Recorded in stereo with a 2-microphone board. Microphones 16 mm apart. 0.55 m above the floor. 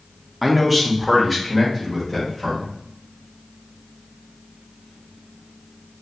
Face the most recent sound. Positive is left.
turn(degrees=5)  # may be behind; listen again after turning